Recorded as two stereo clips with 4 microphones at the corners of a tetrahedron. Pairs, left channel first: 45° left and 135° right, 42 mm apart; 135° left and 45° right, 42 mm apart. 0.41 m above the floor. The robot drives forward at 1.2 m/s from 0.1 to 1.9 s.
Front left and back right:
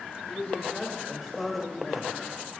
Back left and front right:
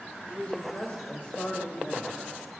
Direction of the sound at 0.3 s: 80° left.